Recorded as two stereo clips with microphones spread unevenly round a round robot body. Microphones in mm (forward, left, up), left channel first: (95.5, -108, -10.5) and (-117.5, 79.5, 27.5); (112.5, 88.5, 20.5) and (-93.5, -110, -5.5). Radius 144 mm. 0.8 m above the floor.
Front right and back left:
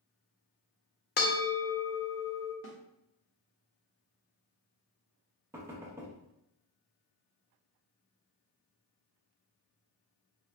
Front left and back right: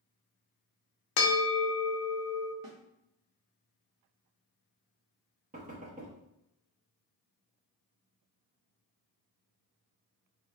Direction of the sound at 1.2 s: 20° left.